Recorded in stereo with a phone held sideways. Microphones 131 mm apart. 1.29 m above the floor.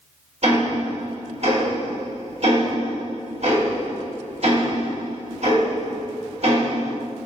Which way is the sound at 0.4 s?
55° right (ahead or behind).